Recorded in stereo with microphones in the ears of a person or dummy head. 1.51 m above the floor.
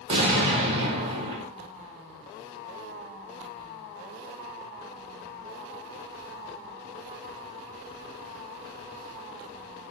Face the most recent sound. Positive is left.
turn(degrees=-30)  # may be behind; listen again after turning